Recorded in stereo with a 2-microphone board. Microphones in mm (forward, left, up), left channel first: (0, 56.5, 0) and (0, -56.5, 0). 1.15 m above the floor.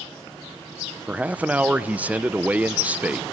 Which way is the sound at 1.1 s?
10° right (ahead or behind).